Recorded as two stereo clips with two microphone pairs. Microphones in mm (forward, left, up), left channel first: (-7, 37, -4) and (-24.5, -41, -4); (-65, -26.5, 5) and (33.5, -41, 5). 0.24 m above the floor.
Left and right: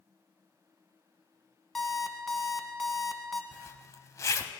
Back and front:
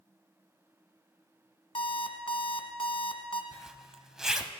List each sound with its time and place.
1.8 s an alarm clock: 165° left, 1.0 m
3.5 s a zipper: 75° left, 0.6 m